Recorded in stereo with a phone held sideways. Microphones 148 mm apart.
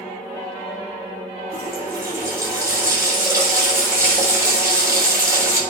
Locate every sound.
1.5 s a running tap: 20° right (ahead or behind), 6 m